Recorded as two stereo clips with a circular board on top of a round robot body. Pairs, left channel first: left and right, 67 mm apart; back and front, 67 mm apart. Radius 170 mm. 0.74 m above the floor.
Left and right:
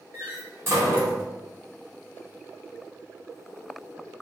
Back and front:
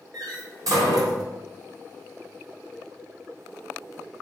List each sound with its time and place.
0.1 s a door slam: 35° right, 3.5 m